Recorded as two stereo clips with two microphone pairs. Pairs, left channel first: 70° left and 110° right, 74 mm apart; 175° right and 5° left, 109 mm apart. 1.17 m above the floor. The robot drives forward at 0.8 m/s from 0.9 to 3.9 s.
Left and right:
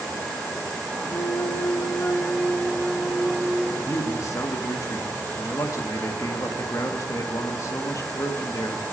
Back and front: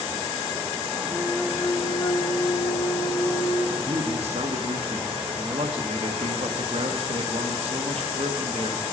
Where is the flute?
70° left, 0.7 m; by 3.7 s 165° left, 2.0 m.